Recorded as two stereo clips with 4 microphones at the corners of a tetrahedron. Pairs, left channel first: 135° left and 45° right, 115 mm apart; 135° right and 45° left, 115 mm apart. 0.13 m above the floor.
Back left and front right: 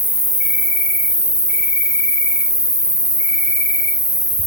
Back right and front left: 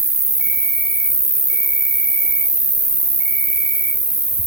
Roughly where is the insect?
Behind.